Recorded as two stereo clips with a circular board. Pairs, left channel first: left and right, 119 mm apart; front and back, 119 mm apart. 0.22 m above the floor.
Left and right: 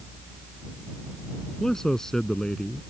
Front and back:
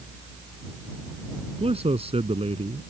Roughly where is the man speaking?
Behind.